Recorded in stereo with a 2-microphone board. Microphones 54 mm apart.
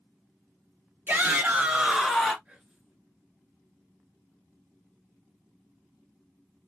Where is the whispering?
20° right (ahead or behind), 1.6 m.